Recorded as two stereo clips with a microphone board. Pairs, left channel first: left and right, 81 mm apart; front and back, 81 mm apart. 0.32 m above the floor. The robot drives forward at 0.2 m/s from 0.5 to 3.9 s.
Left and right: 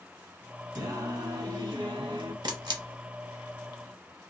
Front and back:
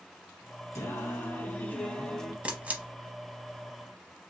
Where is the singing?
55° right, 0.6 m; by 2.3 s 85° right, 0.5 m.